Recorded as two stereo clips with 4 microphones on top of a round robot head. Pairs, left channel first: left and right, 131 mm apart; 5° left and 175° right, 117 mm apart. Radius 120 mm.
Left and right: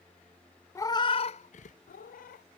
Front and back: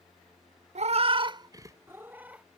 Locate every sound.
0.8 s a cat meowing: 160° left; by 2.5 s 105° left